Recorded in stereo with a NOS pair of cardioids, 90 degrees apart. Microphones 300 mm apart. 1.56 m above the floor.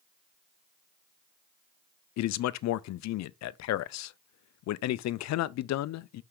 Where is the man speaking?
65° left, 0.5 m.